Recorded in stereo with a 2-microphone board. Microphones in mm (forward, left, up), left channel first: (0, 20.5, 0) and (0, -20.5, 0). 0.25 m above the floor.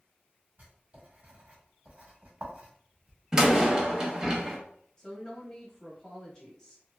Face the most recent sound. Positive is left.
turn(degrees=20)  # may be behind; listen again after turning